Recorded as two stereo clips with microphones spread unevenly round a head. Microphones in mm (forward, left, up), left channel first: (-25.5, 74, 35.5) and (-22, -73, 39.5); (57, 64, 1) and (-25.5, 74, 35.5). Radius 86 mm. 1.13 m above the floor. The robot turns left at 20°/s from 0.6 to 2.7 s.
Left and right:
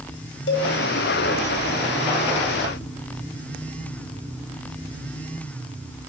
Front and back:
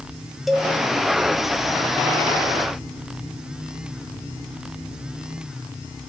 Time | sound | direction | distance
0.5 | a cowbell | 95° left | 1.7 m